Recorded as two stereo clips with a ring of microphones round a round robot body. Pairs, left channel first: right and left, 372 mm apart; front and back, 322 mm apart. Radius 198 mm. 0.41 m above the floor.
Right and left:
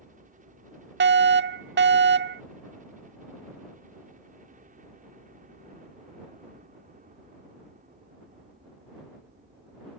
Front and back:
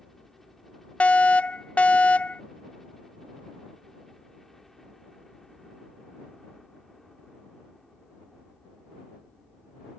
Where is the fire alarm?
80° left.